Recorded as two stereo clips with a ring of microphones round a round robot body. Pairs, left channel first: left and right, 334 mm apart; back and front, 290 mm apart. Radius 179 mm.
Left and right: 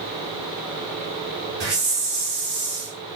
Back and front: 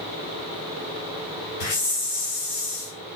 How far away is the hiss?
About 2.5 m.